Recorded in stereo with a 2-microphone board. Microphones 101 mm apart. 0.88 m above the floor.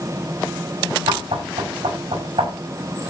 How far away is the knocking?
About 5.5 m.